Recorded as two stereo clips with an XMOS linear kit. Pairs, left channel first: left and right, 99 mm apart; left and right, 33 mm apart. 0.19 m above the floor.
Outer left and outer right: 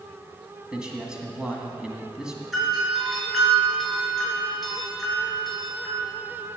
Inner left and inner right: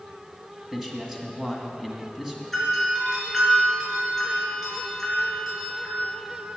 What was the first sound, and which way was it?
A man speaking, 10° right (ahead or behind).